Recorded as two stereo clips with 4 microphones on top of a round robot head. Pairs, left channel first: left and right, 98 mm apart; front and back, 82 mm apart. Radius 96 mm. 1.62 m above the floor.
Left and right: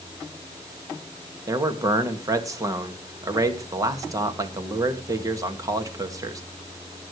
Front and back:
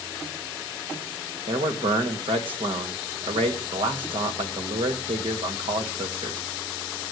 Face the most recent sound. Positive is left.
turn(degrees=-145)